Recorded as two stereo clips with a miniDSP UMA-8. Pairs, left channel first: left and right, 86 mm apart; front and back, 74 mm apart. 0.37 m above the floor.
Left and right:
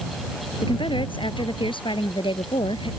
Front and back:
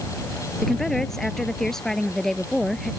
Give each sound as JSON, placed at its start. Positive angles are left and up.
{"t": 0.6, "sound": "a woman speaking", "azimuth_deg": 85}